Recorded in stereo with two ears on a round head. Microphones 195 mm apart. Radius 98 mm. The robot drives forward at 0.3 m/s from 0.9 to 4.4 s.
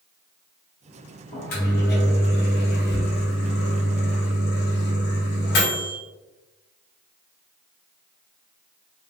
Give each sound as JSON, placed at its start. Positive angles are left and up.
{"t": 1.3, "sound": "a microwave", "side_deg": 40, "distance_m": 1.4}